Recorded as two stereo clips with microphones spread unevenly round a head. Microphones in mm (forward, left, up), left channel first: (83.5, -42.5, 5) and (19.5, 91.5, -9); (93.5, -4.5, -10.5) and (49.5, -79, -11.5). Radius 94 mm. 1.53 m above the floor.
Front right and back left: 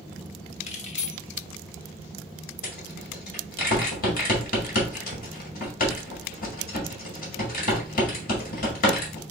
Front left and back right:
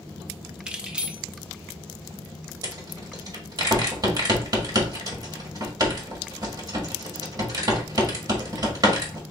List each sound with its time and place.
0.7 s keys jangling: 40° right, 0.8 m
2.6 s a rattle: 85° right, 1.6 m